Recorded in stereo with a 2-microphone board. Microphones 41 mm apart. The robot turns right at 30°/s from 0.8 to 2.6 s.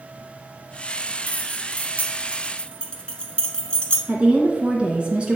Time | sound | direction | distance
1.3 | keys jangling | 45° left (ahead or behind) | 1.0 m
4.1 | a woman speaking | 25° right (ahead or behind) | 1.6 m